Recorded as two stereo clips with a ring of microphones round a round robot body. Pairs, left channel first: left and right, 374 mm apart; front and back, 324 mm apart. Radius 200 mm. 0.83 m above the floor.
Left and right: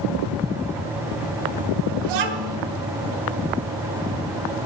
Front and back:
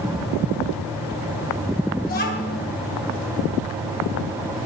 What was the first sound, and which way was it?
A child speaking, 70° right.